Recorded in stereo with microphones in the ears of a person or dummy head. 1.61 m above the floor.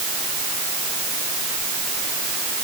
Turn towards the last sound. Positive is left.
No sound to turn to.